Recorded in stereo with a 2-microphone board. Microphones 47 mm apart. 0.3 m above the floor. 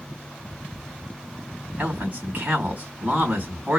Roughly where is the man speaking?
Right.